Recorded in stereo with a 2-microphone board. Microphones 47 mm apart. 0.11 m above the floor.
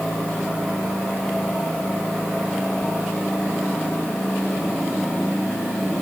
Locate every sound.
Only background noise.